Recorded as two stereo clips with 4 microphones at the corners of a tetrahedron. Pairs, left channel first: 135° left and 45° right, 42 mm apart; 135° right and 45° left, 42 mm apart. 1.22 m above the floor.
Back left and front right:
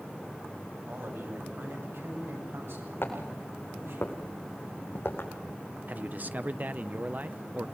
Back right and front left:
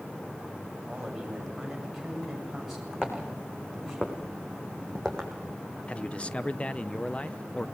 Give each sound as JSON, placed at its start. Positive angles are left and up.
{"t": 0.8, "sound": "a man speaking", "azimuth_deg": -45, "distance_m": 7.5}
{"t": 3.0, "sound": "footsteps", "azimuth_deg": 155, "distance_m": 5.0}
{"t": 5.9, "sound": "a man speaking", "azimuth_deg": -80, "distance_m": 0.7}